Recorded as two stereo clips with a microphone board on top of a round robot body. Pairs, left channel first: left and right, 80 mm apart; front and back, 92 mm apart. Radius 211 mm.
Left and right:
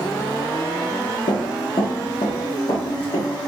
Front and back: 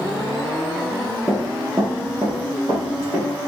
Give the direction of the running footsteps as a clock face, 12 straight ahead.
9 o'clock.